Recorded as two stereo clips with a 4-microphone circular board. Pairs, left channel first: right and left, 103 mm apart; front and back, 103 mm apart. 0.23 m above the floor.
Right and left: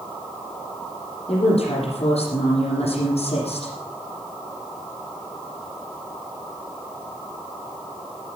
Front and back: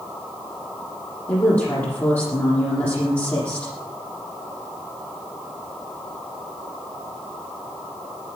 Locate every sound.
1.3 s a woman speaking: 70° right, 7.5 m